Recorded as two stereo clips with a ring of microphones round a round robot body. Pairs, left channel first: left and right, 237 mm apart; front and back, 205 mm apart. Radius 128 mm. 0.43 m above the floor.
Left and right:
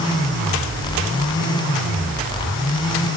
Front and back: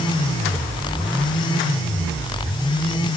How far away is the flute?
No flute in this recording.